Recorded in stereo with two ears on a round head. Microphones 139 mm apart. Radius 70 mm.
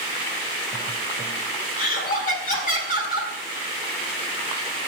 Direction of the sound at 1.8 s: 60° left (ahead or behind).